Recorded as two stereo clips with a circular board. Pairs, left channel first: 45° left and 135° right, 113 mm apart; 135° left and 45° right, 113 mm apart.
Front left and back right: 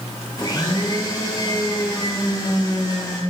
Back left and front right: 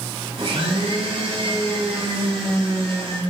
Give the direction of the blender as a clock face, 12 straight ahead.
12 o'clock.